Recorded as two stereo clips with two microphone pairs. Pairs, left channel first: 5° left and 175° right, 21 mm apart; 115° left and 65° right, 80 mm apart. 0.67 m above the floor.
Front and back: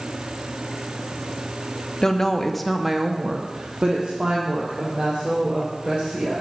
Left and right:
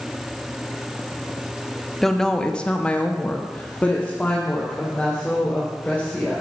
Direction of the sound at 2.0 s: 35° left.